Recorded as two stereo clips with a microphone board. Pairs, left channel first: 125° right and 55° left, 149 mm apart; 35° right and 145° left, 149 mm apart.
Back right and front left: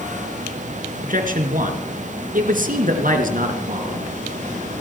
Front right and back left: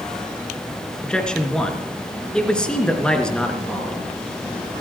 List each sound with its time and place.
1.0 s a man speaking: 50° left, 3 m